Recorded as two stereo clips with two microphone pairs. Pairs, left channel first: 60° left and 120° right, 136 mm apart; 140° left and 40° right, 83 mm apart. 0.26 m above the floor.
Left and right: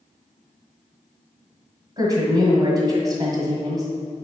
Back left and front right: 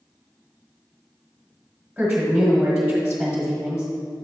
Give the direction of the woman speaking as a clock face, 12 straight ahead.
4 o'clock.